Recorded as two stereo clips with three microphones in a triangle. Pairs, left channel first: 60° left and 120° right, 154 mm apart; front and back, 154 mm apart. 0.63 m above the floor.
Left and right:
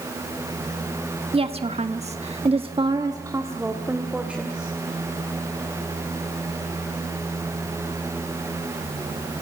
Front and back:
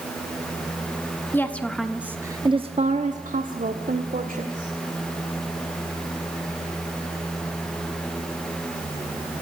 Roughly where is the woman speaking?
Right.